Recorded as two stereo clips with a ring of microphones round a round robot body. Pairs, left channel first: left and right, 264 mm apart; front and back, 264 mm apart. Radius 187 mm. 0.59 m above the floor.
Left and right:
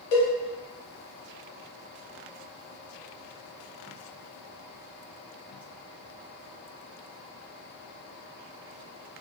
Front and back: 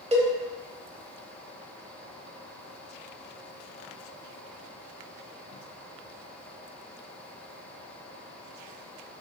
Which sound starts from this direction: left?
A cowbell, at 0.1 s.